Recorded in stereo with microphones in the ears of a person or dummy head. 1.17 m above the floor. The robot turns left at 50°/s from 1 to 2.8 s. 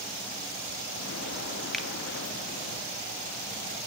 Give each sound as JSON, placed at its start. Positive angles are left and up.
{"t": 1.7, "sound": "a finger snap", "side_deg": 5, "distance_m": 1.5}